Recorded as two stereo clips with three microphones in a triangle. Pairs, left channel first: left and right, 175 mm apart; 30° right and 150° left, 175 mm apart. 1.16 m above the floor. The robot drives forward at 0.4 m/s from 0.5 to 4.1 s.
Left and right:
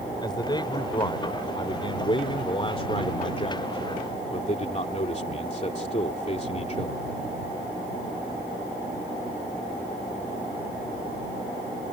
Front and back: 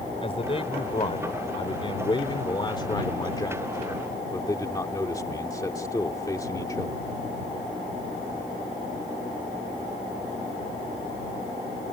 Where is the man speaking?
25° left; by 7.0 s 40° left.